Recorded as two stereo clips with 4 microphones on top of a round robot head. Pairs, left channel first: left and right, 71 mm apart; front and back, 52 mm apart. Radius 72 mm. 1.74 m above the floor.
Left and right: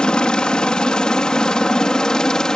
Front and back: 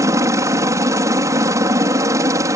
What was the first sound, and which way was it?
A helicopter, 165° left.